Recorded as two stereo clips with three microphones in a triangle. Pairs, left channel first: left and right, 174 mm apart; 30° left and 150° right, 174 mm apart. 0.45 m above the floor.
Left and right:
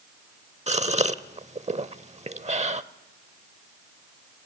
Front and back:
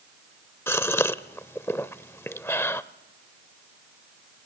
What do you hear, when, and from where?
0.7 s a gasp: 45° right, 0.7 m